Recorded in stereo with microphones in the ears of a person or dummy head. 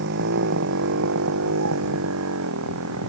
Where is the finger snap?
I don't hear a finger snap.